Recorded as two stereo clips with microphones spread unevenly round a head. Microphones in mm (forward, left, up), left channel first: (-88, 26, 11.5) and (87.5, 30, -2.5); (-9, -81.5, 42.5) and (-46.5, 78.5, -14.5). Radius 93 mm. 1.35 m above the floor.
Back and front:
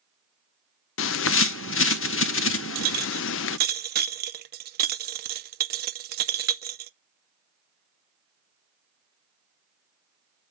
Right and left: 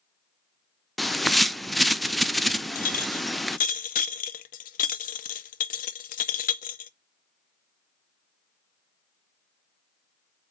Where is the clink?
40° right, 0.6 m.